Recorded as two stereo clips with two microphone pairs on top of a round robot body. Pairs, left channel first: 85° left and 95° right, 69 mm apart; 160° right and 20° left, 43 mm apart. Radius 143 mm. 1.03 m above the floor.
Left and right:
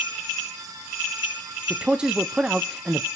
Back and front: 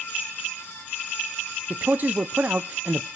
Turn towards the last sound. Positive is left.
turn(degrees=-15)